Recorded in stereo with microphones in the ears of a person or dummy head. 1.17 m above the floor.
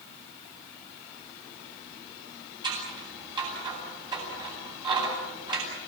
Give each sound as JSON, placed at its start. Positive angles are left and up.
{"t": 2.6, "sound": "scissors", "side_deg": -20, "distance_m": 8.5}